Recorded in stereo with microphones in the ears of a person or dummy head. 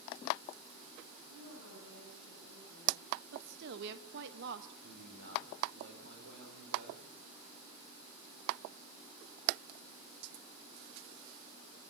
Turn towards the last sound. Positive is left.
turn(degrees=-70)  # may be behind; listen again after turning